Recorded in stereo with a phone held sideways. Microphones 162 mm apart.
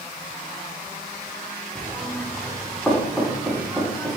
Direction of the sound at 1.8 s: 5° left (ahead or behind).